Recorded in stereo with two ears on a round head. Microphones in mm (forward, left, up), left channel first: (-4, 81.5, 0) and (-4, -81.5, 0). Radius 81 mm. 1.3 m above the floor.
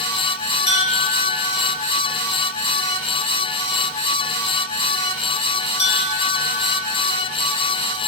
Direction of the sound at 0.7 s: 40° left (ahead or behind).